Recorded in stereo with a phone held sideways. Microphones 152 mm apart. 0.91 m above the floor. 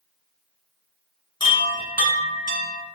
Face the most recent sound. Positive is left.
turn(degrees=35)  # may be behind; listen again after turning